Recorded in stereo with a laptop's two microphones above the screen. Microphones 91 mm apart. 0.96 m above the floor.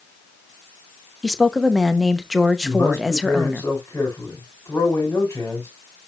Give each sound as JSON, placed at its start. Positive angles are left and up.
{"t": 1.2, "sound": "a woman speaking", "side_deg": -5, "distance_m": 0.8}
{"t": 2.6, "sound": "a man speaking", "side_deg": 25, "distance_m": 4.5}